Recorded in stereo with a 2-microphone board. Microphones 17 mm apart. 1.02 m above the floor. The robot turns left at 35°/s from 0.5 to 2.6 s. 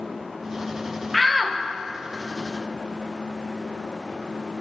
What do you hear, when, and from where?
1.1 s a shout: centre (ahead or behind), 0.8 m; by 1.6 s 15° right (ahead or behind), 0.8 m